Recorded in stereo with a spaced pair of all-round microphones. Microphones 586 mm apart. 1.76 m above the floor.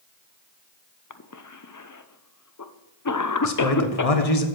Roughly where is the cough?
Left.